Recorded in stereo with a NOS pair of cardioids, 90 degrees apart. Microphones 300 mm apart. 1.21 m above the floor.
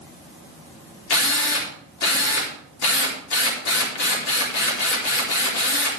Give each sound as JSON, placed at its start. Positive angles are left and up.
{"t": 1.1, "sound": "a drill", "azimuth_deg": 65, "distance_m": 4.0}